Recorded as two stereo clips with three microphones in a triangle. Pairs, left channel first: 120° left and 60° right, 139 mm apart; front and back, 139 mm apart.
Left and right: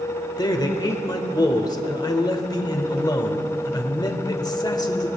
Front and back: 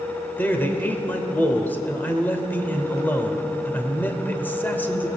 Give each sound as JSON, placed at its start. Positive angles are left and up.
{"t": 0.4, "sound": "a man speaking", "azimuth_deg": 70, "distance_m": 1.1}